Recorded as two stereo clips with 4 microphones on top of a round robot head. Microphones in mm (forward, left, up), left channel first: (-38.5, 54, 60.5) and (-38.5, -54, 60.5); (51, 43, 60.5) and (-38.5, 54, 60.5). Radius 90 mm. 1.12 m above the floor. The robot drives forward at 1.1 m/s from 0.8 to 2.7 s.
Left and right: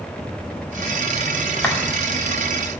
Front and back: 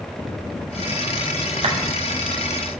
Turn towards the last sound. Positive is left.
turn(degrees=170)